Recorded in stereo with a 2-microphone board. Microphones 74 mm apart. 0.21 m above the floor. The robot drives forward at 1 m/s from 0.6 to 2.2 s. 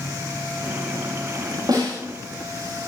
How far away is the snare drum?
About 7.5 m.